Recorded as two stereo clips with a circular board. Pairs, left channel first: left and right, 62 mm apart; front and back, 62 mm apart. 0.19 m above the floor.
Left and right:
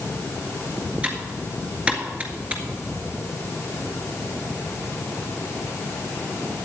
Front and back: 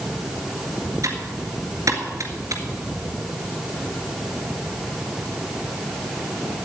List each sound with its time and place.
1.0 s typing on a keyboard: 160° right, 1.8 m